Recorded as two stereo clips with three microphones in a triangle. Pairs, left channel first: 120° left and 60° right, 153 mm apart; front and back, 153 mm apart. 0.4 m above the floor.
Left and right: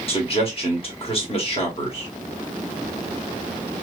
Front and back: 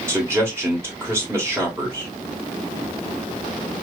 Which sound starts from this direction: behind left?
A man speaking, at 0.1 s.